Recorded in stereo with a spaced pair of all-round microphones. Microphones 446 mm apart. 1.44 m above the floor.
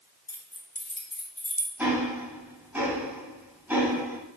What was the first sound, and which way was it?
Keys jangling, 55° left (ahead or behind).